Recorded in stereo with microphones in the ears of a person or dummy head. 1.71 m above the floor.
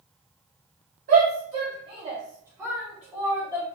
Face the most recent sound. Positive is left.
turn(degrees=10)  # may be behind; listen again after turning